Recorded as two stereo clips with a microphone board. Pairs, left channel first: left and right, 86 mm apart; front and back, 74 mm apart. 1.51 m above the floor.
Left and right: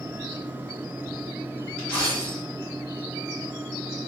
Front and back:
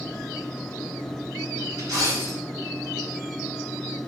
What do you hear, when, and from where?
1.8 s a dropped coin: 160° left, 1.2 m